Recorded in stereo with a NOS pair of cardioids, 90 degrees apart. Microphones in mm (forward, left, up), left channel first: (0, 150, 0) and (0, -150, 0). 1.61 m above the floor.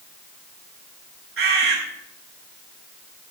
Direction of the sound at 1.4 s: 45° right.